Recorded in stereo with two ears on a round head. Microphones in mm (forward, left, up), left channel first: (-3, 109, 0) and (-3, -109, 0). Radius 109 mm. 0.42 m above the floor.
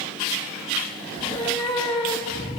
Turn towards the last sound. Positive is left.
turn(degrees=20)  # may be behind; listen again after turning